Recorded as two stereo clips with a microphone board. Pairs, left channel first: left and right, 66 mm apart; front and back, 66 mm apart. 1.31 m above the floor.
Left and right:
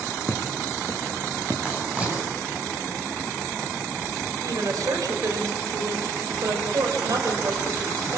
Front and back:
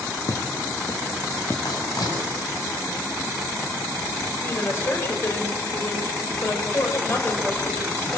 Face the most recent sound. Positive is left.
turn(degrees=-55)